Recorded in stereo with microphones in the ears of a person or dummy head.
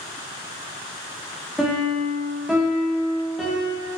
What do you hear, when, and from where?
1.6 s a piano: centre (ahead or behind), 1.8 m